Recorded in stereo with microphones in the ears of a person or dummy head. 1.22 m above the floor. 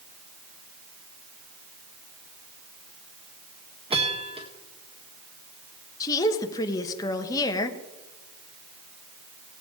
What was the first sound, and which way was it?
A bell, 30° right (ahead or behind).